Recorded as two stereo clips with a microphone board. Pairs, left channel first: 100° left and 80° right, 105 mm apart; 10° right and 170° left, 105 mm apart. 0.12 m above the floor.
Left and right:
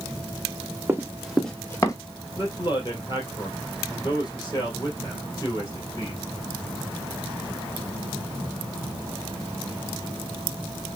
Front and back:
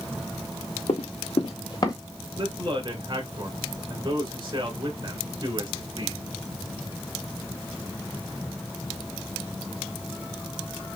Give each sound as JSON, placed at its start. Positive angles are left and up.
{"t": 0.9, "sound": "running footsteps", "azimuth_deg": -10, "distance_m": 1.3}
{"t": 2.4, "sound": "a man speaking", "azimuth_deg": 135, "distance_m": 2.5}